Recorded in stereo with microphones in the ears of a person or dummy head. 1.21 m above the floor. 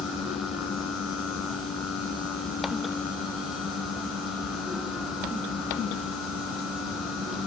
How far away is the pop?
No pop in this recording.